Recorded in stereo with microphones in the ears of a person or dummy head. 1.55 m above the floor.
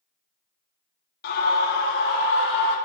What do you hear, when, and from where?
1.2 s a scream: 60° left (ahead or behind), 2.5 m; by 2.8 s 75° left (ahead or behind), 3 m